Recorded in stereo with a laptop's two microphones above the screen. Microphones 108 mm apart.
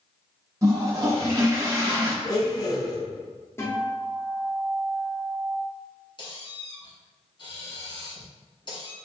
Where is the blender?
35° left (ahead or behind), 0.6 m.